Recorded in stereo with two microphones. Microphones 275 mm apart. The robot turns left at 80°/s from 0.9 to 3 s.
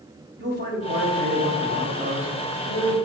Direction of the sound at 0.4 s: 70° right.